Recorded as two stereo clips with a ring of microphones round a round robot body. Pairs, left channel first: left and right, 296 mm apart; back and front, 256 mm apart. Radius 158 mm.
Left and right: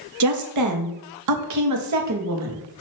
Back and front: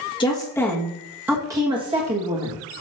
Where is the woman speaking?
110° right, 1.5 m; by 2.6 s 55° right, 1.7 m.